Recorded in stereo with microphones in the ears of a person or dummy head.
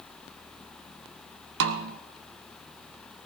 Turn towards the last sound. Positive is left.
turn(degrees=-70)  # may be behind; listen again after turning